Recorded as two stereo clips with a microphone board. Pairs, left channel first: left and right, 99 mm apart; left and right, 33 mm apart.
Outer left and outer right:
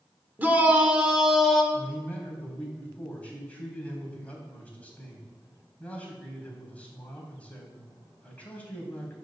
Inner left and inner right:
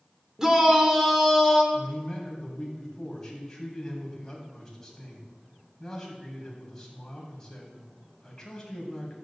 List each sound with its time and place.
0.4 s a shout: 20° right (ahead or behind), 1.6 m; by 1.6 s centre (ahead or behind), 2 m
1.7 s a man speaking: 15° left (ahead or behind), 3 m